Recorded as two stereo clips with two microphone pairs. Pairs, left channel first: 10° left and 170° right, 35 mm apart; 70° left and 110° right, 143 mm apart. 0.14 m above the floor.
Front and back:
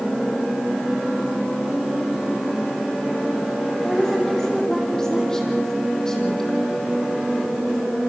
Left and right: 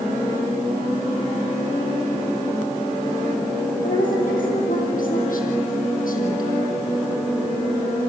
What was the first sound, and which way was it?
A woman speaking, 85° left.